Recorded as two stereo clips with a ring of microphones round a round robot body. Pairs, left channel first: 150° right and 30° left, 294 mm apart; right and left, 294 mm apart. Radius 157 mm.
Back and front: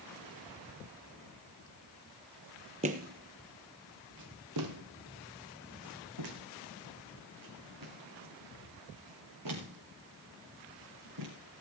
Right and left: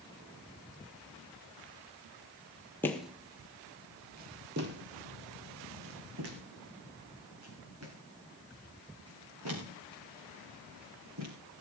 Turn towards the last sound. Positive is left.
turn(degrees=55)